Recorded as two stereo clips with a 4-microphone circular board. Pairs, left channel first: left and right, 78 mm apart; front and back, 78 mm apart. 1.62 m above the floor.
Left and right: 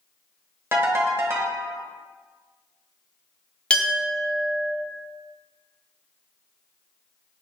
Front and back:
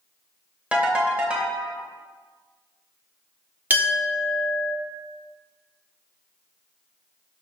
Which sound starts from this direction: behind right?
A ringtone, at 0.7 s.